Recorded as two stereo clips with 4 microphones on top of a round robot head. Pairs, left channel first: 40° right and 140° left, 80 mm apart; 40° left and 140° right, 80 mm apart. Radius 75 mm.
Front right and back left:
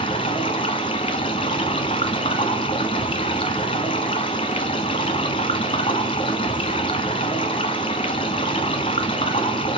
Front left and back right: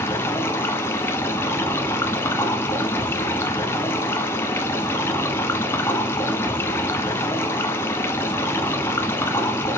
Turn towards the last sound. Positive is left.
turn(degrees=-20)